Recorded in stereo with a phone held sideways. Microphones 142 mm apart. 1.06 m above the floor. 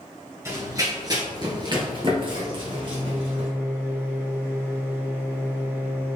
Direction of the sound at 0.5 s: 20° right (ahead or behind).